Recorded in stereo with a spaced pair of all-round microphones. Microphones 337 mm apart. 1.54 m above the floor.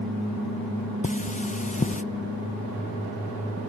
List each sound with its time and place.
1.0 s cutlery clinking: 20° left (ahead or behind), 0.6 m